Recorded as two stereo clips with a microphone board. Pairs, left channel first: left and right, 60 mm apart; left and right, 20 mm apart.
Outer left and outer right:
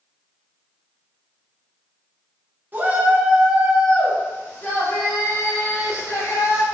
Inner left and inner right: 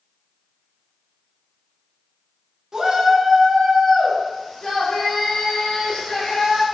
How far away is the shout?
About 0.9 m.